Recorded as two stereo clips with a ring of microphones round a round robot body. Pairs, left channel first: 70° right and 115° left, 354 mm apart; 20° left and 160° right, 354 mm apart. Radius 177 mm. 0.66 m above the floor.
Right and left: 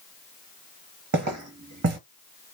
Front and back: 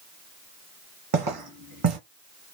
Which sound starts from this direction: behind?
Footsteps, at 1.1 s.